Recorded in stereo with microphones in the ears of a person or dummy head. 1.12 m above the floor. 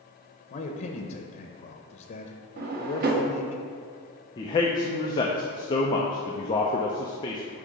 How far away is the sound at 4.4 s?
About 0.5 m.